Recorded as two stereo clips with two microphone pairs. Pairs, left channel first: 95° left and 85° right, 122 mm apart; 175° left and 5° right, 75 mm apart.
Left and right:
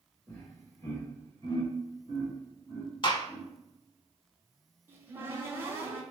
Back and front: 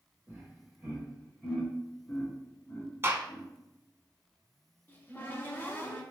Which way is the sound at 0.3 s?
35° left.